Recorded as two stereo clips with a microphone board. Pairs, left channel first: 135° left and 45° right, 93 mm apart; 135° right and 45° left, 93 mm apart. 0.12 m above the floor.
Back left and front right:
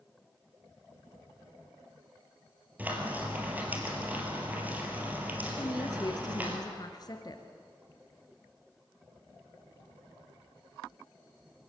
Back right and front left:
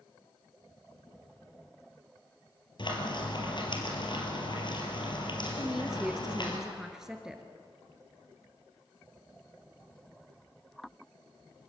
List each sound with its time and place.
2.8 s frying: 115° right, 3.5 m
5.6 s a woman speaking: 125° left, 1.7 m